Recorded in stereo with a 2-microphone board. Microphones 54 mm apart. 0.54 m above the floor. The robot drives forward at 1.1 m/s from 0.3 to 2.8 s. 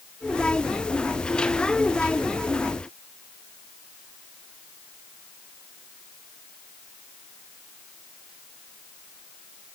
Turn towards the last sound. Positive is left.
No sound to turn to.